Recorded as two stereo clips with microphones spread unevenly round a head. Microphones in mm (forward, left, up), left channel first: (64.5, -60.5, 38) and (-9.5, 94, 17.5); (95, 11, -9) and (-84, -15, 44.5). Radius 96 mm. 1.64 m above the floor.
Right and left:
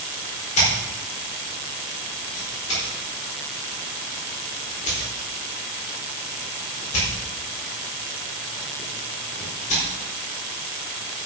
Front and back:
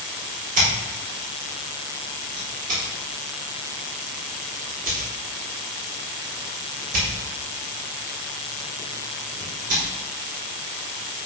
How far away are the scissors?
About 4.5 m.